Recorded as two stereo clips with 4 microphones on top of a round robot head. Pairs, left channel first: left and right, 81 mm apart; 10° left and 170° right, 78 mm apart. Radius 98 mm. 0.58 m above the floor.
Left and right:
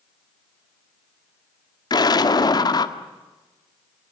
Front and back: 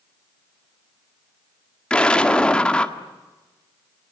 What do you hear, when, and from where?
1.9 s an explosion: 80° left, 1.9 m